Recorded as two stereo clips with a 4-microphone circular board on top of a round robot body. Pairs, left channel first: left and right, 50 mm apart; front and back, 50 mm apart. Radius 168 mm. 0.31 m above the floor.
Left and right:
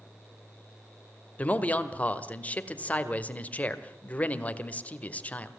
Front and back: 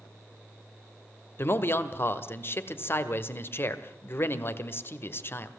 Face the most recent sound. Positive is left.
turn(degrees=30)